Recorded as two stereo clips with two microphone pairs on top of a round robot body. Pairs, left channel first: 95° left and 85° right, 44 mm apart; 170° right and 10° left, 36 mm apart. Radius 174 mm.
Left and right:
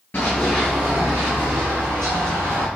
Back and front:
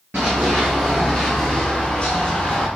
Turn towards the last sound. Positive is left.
turn(degrees=-105)